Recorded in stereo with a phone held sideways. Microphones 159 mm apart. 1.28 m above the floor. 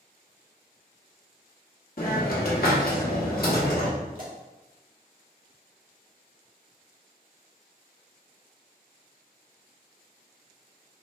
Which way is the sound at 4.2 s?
60° right (ahead or behind).